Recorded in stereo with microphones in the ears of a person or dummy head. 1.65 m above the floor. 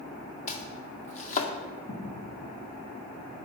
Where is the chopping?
45° left (ahead or behind), 2.0 m.